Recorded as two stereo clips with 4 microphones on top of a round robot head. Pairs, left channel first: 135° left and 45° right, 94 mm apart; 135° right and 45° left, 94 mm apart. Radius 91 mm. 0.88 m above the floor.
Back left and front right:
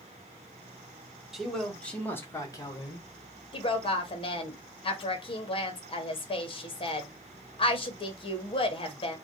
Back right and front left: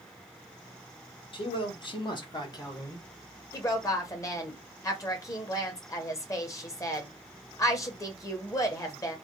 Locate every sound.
1.3 s a man speaking: 130° right, 1.4 m; by 3.0 s 170° left, 1.4 m
3.5 s a woman speaking: 165° left, 1.1 m